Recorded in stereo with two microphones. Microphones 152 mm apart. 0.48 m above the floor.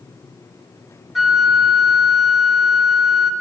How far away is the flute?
About 1.5 m.